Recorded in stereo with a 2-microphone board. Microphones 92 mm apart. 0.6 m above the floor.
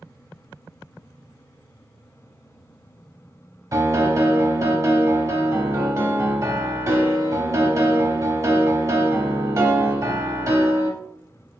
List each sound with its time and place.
3.7 s a piano: 35° right (ahead or behind), 0.6 m